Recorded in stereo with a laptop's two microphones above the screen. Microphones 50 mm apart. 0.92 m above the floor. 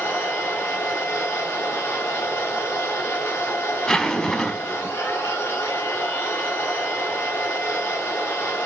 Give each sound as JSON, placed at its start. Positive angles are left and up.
{"t": 0.0, "sound": "a machine running", "side_deg": 40, "distance_m": 2.5}
{"t": 3.9, "sound": "a zipper", "side_deg": 10, "distance_m": 1.1}